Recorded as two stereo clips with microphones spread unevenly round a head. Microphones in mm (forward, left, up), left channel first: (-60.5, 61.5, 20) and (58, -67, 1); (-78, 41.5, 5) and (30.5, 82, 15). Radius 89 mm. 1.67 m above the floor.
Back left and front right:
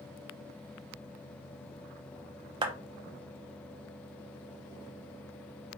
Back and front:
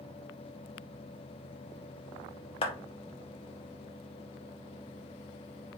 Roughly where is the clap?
Right.